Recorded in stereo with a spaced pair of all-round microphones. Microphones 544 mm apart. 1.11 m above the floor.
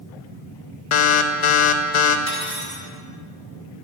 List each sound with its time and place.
0.9 s an alarm: 60° left (ahead or behind), 0.5 m
2.3 s cutlery clinking: 60° right (ahead or behind), 1.1 m